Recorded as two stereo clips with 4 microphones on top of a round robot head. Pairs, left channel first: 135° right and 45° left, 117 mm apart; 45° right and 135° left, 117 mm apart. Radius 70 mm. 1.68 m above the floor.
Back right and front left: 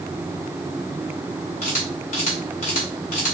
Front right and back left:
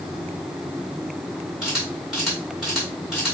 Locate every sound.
1.6 s a camera shutter: 140° right, 1.8 m